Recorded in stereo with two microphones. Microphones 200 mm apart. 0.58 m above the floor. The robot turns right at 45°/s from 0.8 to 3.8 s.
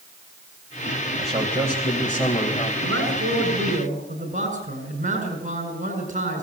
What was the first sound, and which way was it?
A man speaking, 35° right.